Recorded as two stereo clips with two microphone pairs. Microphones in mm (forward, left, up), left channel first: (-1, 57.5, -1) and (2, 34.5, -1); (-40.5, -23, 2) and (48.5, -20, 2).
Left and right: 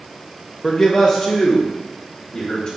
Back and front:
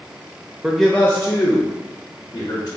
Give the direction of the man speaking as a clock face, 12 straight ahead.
10 o'clock.